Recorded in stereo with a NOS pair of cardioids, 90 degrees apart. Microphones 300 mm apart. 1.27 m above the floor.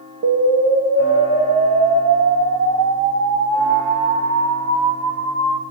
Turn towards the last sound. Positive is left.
turn(degrees=-65)